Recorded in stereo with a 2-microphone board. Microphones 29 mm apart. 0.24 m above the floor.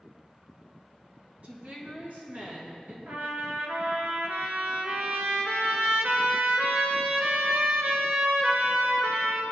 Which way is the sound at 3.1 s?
75° right (ahead or behind).